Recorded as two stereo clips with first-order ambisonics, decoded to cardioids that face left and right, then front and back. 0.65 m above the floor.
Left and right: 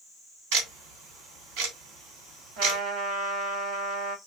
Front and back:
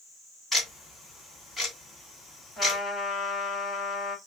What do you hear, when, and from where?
0.5 s ticking: 90° right, 1.9 m
2.6 s a trumpet: 80° right, 1.7 m